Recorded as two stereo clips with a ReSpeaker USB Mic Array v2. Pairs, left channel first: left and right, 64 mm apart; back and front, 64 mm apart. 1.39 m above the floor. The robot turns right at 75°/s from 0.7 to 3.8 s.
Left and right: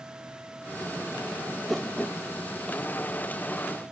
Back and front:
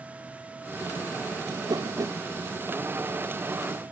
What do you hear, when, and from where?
1.5 s a whoosh: 15° right; by 2.2 s 35° left